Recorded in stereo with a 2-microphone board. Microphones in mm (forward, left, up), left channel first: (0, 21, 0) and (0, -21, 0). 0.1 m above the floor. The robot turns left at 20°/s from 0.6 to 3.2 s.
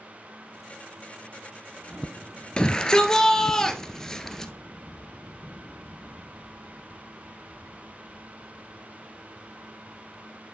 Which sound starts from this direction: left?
A shout, at 2.6 s.